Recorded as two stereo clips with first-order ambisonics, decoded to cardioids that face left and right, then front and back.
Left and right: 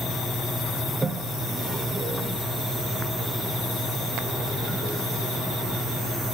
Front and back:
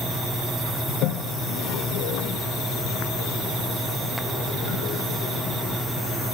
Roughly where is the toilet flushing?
Ahead.